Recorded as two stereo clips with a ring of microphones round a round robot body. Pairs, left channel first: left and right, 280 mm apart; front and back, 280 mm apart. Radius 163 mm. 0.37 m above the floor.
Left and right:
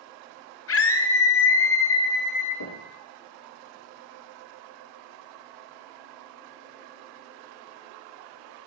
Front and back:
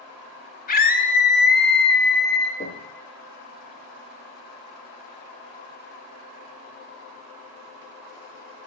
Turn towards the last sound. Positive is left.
turn(degrees=65)